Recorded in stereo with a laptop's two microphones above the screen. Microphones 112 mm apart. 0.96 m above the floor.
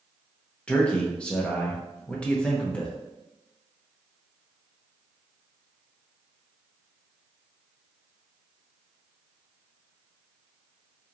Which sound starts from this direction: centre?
A man speaking, at 0.7 s.